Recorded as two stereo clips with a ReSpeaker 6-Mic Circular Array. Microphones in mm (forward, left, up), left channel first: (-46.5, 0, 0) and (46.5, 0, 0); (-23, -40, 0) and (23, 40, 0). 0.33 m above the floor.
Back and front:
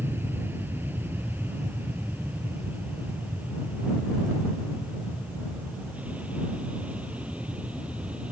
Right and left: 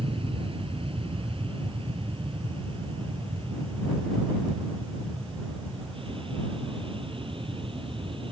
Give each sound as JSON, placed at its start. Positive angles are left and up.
{"t": 0.0, "sound": "an aircraft", "azimuth_deg": 65}